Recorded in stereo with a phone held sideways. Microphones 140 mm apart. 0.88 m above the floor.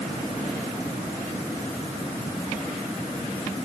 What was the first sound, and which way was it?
Only background noise.